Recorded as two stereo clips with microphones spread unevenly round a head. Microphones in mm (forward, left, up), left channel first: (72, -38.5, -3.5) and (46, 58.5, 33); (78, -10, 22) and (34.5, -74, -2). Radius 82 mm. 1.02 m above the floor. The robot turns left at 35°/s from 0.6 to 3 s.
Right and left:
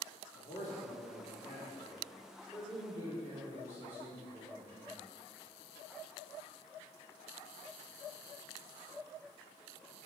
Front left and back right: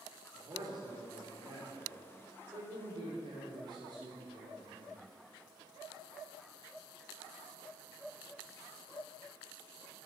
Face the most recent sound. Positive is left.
turn(degrees=-175)